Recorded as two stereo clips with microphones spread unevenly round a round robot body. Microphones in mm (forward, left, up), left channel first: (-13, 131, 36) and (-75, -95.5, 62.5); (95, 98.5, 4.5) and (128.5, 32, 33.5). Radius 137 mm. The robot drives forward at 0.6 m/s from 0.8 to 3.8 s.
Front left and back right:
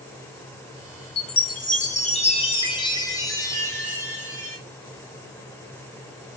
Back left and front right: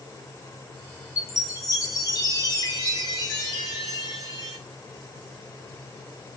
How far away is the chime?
About 1.2 m.